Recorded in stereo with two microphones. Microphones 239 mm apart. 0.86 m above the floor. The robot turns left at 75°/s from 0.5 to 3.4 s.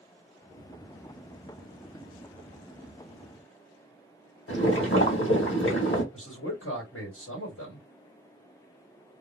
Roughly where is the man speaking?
Left.